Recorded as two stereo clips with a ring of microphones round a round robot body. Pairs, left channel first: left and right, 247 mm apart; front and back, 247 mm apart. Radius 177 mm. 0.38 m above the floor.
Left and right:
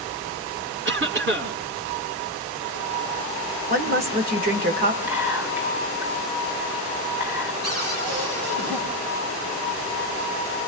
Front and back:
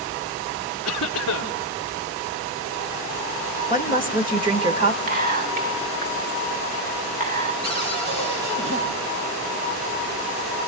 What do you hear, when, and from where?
0.8 s a cough: 55° right, 3 m
3.7 s a woman speaking: 120° right, 1.5 m
5.1 s whispering: 165° right, 1.2 m
7.6 s a cupboard door: 140° right, 8.5 m